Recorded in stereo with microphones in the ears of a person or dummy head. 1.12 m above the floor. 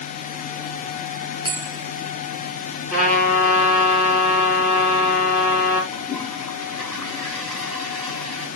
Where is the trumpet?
Centre (ahead or behind), 4.5 m.